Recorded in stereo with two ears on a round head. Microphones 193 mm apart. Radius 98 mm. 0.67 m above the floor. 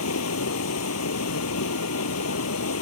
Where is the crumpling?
No crumpling in this recording.